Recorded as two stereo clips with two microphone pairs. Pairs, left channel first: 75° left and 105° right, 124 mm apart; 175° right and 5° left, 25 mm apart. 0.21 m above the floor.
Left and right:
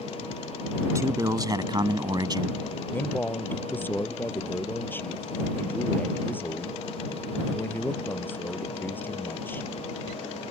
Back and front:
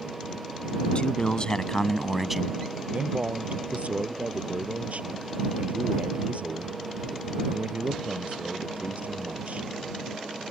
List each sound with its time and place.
0.9 s a man speaking: 165° right; by 2.6 s 60° right
2.9 s a man speaking: straight ahead